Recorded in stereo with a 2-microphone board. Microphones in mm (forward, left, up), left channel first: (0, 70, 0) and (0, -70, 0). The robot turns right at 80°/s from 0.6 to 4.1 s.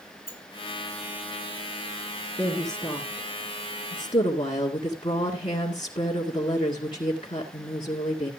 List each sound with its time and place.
0.3 s a sliding door: 40° left (ahead or behind), 3 m
2.4 s a woman speaking: 20° right, 1.9 m; by 8.3 s 115° left, 1.9 m